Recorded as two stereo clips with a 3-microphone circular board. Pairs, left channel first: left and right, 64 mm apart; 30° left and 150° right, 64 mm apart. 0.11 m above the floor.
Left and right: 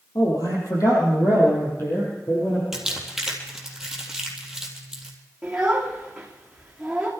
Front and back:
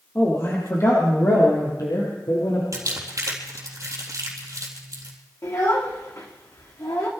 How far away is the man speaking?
About 4 m.